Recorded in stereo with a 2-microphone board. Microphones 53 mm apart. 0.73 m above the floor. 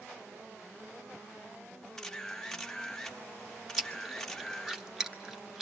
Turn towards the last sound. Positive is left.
turn(degrees=-10)  # may be behind; listen again after turning